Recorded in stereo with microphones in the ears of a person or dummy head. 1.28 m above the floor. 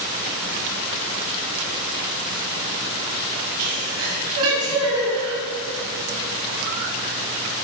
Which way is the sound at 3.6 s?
75° right (ahead or behind).